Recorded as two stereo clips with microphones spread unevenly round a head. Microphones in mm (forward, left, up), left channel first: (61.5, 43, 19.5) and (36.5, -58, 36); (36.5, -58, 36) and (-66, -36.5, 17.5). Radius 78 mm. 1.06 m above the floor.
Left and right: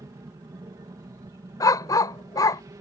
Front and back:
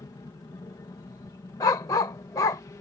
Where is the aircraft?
55° right; by 2.8 s 60° right.